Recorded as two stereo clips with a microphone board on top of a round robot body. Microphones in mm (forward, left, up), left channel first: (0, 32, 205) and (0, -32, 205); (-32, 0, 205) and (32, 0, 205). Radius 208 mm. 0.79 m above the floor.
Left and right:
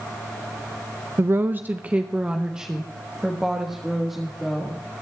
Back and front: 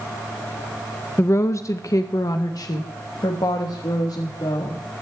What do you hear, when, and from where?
1.2 s a woman speaking: 135° right, 0.7 m; by 4.8 s straight behind, 2.5 m